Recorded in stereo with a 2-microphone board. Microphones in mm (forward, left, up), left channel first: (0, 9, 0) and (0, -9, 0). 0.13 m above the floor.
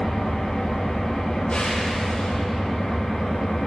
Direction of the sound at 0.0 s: 55° left (ahead or behind).